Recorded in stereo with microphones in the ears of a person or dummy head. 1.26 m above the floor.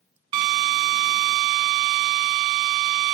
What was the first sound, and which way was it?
A drill, 30° right (ahead or behind).